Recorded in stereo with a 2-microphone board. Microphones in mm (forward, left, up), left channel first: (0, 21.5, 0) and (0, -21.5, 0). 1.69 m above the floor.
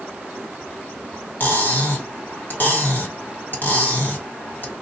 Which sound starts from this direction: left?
Cutlery clinking, at 1.4 s.